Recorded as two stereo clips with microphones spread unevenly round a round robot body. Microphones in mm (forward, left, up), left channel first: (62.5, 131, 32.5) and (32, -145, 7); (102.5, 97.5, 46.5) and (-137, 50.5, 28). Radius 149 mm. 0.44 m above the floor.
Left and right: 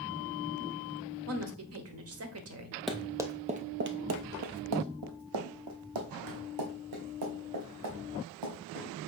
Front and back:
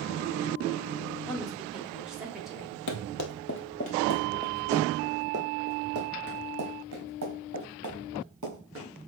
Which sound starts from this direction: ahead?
Running footsteps, at 2.9 s.